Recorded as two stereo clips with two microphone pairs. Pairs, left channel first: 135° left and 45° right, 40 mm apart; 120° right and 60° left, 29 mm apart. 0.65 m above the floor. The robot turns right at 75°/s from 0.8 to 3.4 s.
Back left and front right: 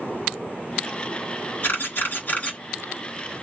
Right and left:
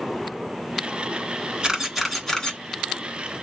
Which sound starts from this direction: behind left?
A camera shutter, at 1.6 s.